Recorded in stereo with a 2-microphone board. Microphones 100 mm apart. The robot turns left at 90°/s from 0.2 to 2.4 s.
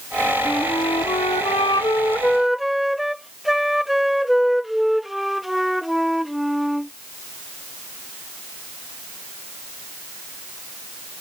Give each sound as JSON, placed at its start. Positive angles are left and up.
{"t": 0.5, "sound": "a flute", "azimuth_deg": 175}